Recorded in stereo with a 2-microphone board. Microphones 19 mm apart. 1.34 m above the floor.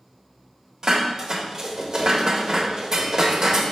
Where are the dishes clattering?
30° right (ahead or behind), 0.7 m.